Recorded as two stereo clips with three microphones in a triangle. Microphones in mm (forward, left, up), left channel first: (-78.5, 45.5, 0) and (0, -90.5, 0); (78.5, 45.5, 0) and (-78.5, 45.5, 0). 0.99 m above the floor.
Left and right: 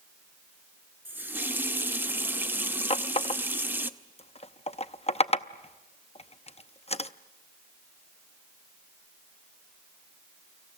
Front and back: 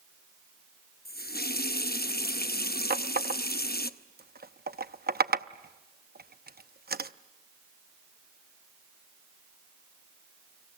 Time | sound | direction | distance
1.1 | a running tap | 15° left | 0.8 m
2.9 | a running tap | 170° left | 0.7 m